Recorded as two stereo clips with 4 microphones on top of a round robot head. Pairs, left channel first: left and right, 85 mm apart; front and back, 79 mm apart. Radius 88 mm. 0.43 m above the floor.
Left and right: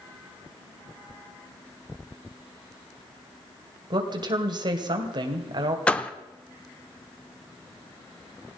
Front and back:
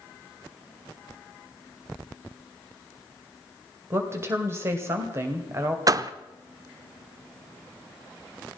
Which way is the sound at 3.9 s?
120° right.